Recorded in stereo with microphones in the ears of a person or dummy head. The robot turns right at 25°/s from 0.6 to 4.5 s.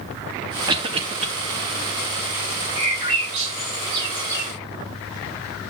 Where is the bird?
55° right (ahead or behind), 4 m; by 4.5 s 15° right (ahead or behind), 4 m.